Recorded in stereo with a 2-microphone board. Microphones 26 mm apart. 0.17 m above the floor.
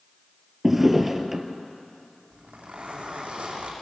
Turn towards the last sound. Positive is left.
turn(degrees=-60)  # may be behind; listen again after turning